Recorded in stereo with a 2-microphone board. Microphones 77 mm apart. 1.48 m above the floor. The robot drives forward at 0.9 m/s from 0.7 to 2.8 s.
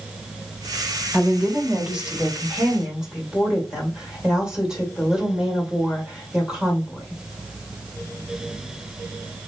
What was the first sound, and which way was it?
A woman speaking, 20° right (ahead or behind).